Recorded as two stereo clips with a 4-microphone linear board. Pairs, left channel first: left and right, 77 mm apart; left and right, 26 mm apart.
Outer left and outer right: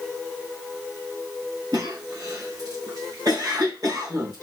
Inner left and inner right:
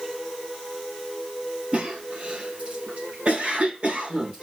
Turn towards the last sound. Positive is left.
turn(degrees=-50)  # may be behind; listen again after turning